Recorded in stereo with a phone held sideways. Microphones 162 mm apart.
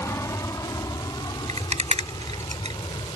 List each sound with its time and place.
0.0 s an aircraft: 20° left (ahead or behind); by 3.2 s 30° left (ahead or behind)
1.5 s a rattle: 40° right (ahead or behind)